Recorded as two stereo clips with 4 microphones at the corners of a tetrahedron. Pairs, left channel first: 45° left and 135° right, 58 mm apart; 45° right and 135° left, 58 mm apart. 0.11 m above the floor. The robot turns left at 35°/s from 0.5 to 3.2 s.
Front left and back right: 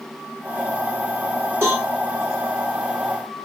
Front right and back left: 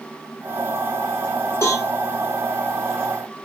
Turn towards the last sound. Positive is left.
turn(degrees=-140)